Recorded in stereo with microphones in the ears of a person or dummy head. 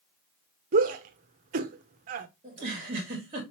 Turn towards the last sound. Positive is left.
turn(degrees=-30)  # may be behind; listen again after turning